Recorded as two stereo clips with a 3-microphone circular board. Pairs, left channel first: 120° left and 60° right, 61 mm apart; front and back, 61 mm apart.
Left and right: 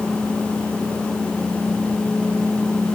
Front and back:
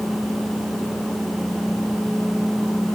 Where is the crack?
I don't hear a crack.